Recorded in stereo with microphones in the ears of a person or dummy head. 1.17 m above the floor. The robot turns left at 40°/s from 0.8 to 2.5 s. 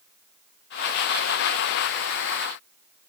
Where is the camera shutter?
I don't hear a camera shutter.